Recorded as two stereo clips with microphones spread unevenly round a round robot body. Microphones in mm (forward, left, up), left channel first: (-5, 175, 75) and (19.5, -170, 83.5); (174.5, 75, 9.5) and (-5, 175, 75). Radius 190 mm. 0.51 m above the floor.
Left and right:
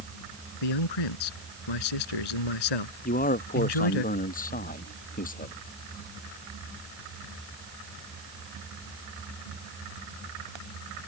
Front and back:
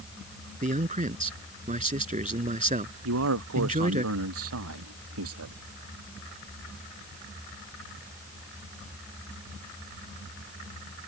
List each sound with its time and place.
0.6 s a man speaking: 100° left
3.0 s a man speaking: 160° left